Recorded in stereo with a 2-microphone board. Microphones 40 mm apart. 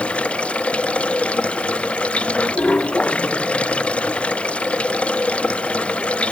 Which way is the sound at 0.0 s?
30° left (ahead or behind).